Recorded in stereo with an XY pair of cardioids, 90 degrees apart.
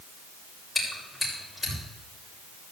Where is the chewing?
15° left, 7 m.